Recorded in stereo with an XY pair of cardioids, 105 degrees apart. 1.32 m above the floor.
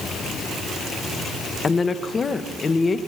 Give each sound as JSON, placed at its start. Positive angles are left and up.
{"t": 1.6, "sound": "a woman speaking", "azimuth_deg": 35, "distance_m": 1.4}